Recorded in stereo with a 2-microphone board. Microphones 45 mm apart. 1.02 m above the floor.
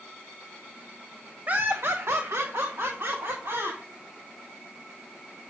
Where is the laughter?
35° right (ahead or behind), 0.7 m; by 3.8 s 60° right (ahead or behind), 2.5 m.